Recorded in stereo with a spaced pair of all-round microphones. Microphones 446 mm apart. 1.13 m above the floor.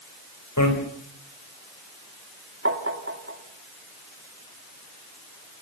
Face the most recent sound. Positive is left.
turn(degrees=-25)  # may be behind; listen again after turning